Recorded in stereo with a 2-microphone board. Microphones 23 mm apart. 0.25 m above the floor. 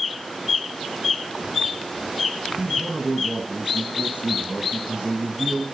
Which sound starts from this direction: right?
A man speaking, at 2.6 s.